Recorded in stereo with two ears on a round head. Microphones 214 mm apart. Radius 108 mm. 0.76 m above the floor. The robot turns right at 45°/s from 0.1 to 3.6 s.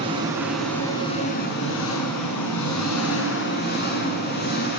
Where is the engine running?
20° right, 6.5 m; by 4.8 s 135° left, 6.5 m.